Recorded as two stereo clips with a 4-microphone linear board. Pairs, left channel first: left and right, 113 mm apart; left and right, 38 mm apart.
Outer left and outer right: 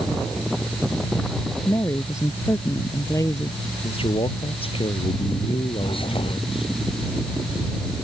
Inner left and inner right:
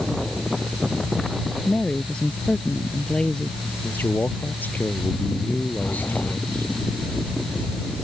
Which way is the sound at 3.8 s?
60° left (ahead or behind).